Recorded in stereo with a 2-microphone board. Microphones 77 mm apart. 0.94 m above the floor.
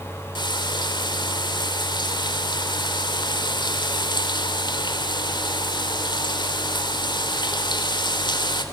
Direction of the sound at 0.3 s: 85° left.